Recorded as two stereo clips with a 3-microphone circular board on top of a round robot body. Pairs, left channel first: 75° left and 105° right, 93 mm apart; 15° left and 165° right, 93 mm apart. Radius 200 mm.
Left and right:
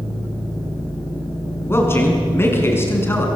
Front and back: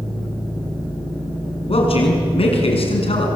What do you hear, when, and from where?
1.7 s a man speaking: 10° left, 6 m